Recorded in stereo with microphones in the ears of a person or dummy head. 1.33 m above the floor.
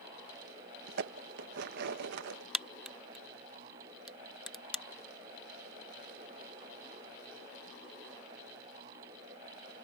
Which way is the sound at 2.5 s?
Centre (ahead or behind).